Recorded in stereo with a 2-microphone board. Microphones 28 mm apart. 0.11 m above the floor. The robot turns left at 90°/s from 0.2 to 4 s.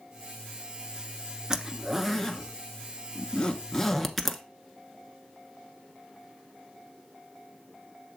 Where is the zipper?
25° right (ahead or behind), 0.7 m; by 4.4 s centre (ahead or behind), 0.7 m.